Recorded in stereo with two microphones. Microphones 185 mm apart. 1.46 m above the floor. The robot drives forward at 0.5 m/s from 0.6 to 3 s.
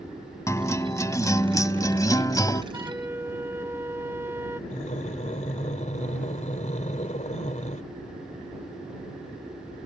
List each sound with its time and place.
0.5 s a guitar: 15° left (ahead or behind); by 2.6 s 20° left (ahead or behind)
2.7 s a flute: 15° right (ahead or behind); by 4.6 s 10° right (ahead or behind)
4.7 s breathing: 40° left (ahead or behind)